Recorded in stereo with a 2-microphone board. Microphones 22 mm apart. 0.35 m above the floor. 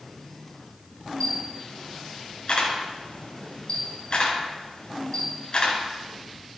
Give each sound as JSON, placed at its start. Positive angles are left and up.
{"t": 1.2, "sound": "a camera shutter", "side_deg": 45, "distance_m": 3.0}